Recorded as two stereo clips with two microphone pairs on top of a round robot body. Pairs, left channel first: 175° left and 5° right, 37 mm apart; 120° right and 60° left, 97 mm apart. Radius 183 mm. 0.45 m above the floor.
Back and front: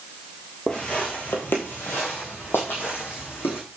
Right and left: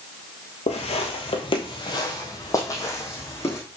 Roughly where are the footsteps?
Behind right.